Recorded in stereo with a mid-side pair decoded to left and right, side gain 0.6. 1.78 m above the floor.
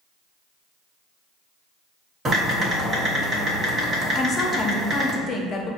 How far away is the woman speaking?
About 0.8 m.